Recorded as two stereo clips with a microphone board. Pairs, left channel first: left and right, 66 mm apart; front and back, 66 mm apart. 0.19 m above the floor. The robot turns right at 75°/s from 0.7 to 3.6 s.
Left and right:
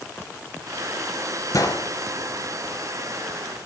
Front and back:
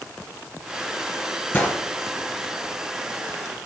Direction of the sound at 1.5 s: 55° left.